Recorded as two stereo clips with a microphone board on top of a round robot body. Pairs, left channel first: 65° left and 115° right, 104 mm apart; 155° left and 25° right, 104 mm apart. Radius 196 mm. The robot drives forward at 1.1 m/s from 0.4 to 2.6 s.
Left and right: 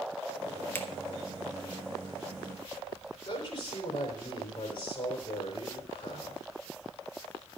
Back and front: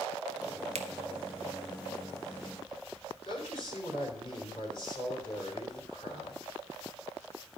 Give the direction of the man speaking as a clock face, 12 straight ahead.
8 o'clock.